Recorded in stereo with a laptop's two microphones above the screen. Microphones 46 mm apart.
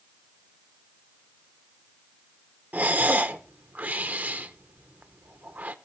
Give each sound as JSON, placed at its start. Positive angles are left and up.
{"t": 2.7, "sound": "breathing", "side_deg": -40, "distance_m": 0.7}